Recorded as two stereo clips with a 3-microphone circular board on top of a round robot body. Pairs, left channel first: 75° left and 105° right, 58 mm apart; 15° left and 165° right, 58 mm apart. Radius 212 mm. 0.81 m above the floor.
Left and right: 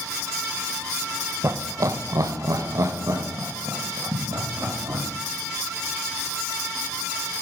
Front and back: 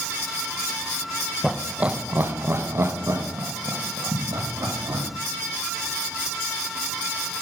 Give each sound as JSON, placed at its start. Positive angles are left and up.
{"t": 1.4, "sound": "laughter", "azimuth_deg": -80, "distance_m": 0.8}